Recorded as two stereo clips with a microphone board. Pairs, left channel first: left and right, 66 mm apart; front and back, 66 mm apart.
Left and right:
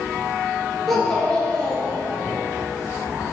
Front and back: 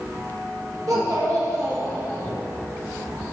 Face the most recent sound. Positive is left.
turn(degrees=150)